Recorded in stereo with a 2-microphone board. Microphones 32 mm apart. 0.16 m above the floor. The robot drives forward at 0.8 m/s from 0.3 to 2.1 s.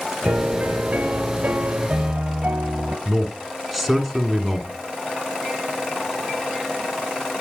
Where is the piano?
60° right (ahead or behind), 1.4 m; by 3.0 s 45° right (ahead or behind), 1.7 m.